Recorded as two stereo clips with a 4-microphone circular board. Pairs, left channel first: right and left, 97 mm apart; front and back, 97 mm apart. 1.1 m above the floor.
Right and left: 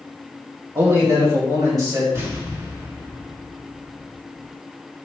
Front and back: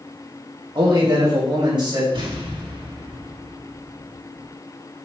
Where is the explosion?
150° left, 2 m.